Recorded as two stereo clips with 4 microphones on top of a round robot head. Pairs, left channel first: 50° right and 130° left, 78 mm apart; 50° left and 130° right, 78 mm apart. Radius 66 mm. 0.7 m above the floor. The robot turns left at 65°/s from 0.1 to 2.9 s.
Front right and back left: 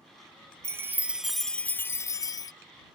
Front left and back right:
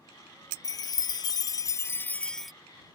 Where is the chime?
85° left; by 2.5 s 40° right.